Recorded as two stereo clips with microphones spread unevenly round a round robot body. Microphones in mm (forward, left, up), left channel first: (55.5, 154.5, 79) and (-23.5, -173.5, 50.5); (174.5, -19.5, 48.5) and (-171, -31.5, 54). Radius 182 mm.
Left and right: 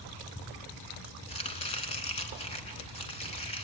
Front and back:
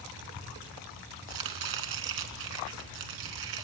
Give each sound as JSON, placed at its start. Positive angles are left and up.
{"t": 1.3, "sound": "chopping", "azimuth_deg": 150, "distance_m": 2.0}